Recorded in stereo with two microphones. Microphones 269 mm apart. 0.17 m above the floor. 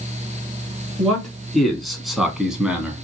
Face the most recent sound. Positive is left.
turn(degrees=-5)  # may be behind; listen again after turning